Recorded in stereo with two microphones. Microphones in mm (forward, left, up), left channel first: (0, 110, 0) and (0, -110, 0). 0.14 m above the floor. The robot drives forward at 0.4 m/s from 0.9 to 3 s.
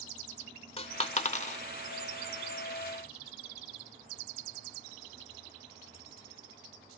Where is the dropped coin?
25° left (ahead or behind), 0.6 m; by 1.6 s 35° left (ahead or behind), 0.5 m.